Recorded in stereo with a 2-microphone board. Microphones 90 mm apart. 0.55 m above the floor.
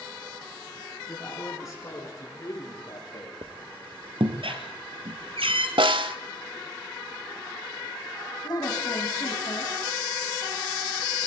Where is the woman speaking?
50° left (ahead or behind), 3.5 m.